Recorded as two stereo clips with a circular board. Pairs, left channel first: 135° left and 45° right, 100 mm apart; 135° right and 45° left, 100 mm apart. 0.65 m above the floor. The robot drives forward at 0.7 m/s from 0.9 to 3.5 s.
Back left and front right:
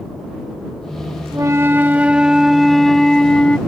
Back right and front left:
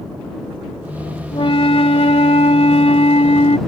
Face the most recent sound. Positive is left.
turn(degrees=-145)